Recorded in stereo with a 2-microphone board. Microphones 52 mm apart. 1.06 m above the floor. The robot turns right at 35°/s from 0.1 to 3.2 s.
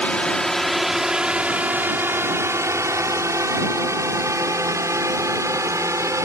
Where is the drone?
25° left (ahead or behind); by 6.3 s 70° right (ahead or behind).